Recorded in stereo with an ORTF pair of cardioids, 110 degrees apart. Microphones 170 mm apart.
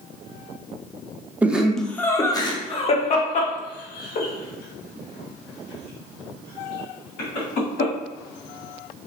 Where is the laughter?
10° right, 0.9 m; by 7.9 s 75° left, 3 m.